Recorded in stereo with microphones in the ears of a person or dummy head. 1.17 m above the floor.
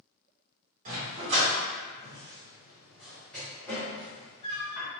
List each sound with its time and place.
0.8 s a dog barking: 45° right (ahead or behind), 1.6 m; by 4.9 s 30° left (ahead or behind), 1.8 m